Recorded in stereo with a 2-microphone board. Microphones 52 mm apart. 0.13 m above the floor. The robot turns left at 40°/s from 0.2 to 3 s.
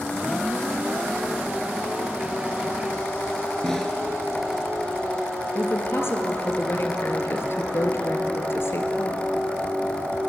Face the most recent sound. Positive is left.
turn(degrees=55)  # may be behind; listen again after turning